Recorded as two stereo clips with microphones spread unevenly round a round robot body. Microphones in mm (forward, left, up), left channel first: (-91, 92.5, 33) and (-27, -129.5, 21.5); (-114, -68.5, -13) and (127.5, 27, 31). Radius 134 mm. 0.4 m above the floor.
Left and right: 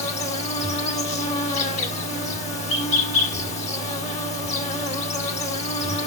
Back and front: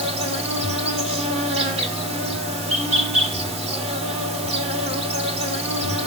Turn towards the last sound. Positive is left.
turn(degrees=80)